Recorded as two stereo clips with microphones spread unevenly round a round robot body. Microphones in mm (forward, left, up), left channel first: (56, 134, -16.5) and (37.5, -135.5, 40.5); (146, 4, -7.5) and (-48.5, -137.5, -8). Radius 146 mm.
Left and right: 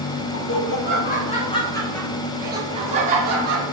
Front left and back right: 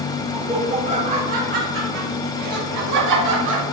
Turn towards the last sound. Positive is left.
turn(degrees=-150)